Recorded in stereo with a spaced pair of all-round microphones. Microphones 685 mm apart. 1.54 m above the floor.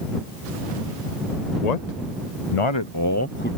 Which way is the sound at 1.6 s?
70° left (ahead or behind).